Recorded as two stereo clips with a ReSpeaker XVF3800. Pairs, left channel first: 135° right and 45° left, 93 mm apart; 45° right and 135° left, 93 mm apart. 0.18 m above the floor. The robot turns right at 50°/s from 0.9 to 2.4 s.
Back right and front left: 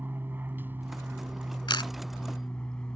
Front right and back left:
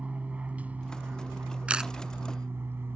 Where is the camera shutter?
150° right; by 1.9 s 140° right.